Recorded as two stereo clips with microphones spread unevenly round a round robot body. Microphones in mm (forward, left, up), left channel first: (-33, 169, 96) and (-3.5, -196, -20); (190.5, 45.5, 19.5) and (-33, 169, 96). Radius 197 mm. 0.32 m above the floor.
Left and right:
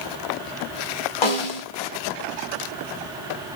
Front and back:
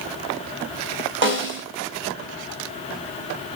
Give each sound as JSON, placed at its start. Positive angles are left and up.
{"t": 1.2, "sound": "a snare drum", "azimuth_deg": 105, "distance_m": 1.6}